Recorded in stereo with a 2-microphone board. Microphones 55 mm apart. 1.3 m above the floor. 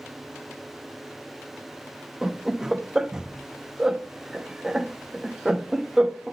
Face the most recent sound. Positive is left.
turn(degrees=-10)  # may be behind; listen again after turning